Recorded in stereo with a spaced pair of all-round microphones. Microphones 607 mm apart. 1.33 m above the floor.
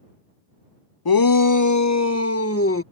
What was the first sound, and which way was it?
A shout, 40° left (ahead or behind).